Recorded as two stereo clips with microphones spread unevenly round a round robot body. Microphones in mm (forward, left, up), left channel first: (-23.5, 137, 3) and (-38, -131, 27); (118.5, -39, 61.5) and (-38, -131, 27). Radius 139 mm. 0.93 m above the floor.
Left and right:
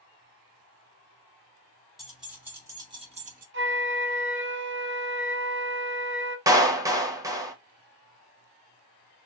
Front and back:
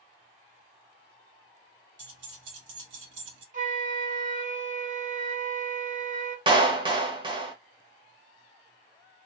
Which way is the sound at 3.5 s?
135° right.